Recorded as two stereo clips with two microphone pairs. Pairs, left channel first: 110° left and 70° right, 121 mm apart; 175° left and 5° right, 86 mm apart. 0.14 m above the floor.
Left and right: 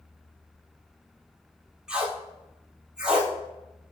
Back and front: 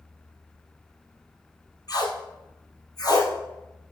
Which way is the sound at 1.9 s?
150° right.